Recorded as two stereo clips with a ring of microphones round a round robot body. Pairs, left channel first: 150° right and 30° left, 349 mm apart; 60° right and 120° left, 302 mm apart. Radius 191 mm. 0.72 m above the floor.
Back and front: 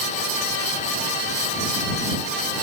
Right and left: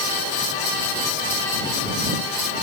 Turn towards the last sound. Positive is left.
No sound to turn to.